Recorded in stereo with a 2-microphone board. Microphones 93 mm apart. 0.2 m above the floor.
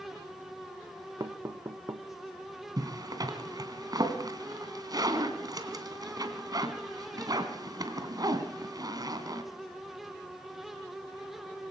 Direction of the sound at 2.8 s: 45° right (ahead or behind).